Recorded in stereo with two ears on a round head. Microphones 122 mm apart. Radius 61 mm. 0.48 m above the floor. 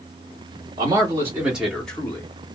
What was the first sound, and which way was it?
A man speaking, 30° right (ahead or behind).